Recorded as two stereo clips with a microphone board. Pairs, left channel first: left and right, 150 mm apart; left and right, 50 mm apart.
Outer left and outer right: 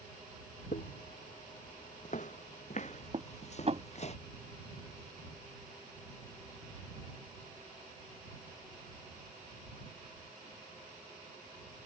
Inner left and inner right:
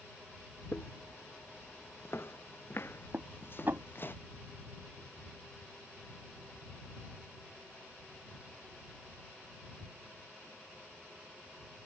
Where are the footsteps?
60° left (ahead or behind); by 4.1 s 45° left (ahead or behind).